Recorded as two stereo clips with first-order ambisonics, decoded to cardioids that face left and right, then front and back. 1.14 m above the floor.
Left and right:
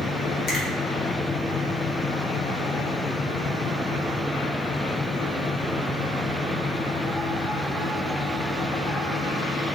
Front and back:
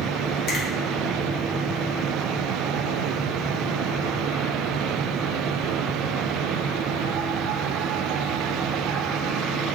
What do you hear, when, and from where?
0.5 s a finger snap: 40° left, 0.9 m